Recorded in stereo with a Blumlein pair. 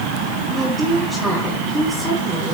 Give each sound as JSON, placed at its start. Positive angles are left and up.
{"t": 0.5, "sound": "a woman speaking", "azimuth_deg": -5, "distance_m": 3.5}